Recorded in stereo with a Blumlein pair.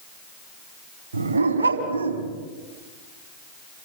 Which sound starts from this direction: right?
A dog barking, at 1.1 s.